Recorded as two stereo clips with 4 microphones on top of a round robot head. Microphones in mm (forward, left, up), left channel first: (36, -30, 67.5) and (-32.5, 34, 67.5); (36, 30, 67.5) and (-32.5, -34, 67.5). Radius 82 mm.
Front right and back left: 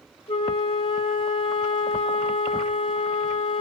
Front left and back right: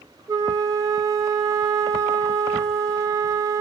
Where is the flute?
80° right, 0.5 m.